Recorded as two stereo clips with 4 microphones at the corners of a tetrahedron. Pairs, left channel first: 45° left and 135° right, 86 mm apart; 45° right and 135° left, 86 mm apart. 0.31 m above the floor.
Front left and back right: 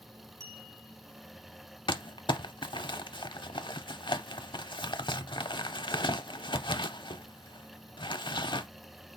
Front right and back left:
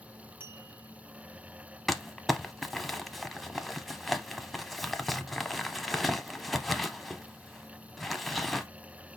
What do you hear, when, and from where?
0.4 s a clink: 165° right, 1.2 m
1.9 s crumpling: 45° left, 0.5 m